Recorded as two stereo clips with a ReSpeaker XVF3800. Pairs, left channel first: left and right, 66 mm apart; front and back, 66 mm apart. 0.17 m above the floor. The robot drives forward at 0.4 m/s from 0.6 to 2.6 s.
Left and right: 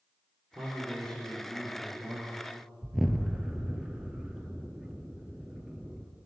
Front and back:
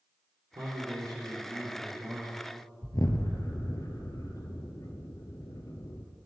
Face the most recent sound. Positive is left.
turn(degrees=-5)